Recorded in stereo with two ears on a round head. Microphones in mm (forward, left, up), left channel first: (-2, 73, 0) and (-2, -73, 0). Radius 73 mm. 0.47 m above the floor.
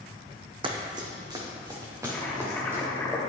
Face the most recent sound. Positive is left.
turn(degrees=10)  # may be behind; listen again after turning